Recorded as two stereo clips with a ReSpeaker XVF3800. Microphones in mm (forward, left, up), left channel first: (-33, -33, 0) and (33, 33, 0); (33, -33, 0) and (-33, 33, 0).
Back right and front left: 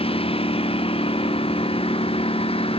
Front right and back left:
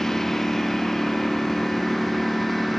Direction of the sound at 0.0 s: 130° right.